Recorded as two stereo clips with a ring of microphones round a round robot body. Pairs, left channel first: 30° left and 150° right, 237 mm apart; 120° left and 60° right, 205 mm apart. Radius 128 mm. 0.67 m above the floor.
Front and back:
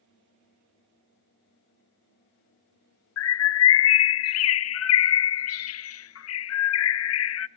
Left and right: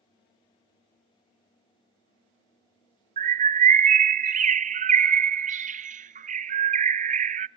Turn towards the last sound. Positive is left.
turn(degrees=-5)